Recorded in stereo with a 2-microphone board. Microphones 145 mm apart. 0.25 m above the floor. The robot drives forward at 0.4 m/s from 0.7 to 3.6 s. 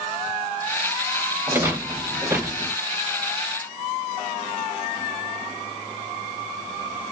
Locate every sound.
1.5 s a rattle: 15° right (ahead or behind), 0.5 m